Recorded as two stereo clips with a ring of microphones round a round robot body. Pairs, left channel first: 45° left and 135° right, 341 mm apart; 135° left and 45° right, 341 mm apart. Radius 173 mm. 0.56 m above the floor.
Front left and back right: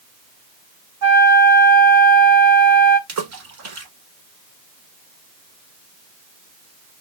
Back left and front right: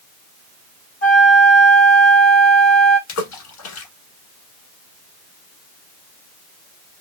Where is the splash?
Straight behind, 1.2 m.